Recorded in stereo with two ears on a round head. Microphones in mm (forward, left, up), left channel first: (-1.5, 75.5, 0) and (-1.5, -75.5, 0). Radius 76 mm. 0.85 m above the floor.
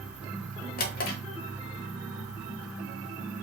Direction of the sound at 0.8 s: 55° left (ahead or behind).